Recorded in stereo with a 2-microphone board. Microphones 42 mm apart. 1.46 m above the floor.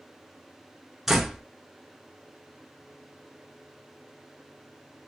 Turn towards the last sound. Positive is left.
turn(degrees=-5)  # may be behind; listen again after turning